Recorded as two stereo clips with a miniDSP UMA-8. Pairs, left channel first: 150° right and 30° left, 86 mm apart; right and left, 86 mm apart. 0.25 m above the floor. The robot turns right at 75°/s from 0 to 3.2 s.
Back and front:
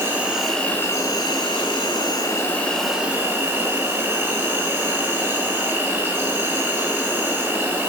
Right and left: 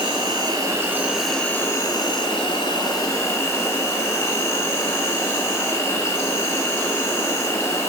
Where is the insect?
85° left, 0.9 m; by 7.9 s 35° right, 0.9 m.